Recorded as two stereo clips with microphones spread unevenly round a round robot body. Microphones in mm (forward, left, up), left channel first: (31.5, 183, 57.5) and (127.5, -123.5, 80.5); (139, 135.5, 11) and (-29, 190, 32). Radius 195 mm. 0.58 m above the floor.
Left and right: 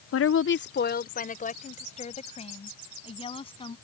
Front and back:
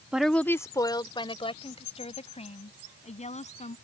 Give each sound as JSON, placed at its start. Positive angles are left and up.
{"t": 0.1, "sound": "a woman speaking", "azimuth_deg": 75}